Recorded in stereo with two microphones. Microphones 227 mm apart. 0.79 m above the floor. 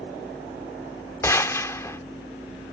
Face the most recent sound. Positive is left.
turn(degrees=15)  # may be behind; listen again after turning